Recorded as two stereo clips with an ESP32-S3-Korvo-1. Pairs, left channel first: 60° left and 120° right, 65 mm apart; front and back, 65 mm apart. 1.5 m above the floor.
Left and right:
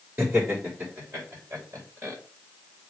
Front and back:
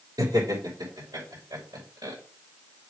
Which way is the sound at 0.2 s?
Straight behind.